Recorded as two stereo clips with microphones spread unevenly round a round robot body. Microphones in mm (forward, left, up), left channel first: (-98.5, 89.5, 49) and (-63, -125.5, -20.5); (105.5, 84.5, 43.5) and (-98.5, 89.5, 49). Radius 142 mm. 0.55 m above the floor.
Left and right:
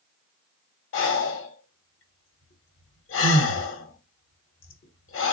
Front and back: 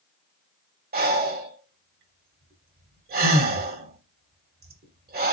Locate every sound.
0.9 s breathing: 135° left, 1.1 m